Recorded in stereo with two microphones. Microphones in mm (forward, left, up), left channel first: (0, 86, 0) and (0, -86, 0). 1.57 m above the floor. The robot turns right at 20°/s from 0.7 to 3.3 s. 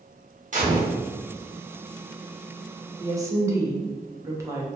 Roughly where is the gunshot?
Right.